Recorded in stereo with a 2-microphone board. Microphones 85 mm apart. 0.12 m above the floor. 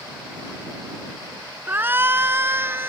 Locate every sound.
1.7 s a shout: 25° right (ahead or behind)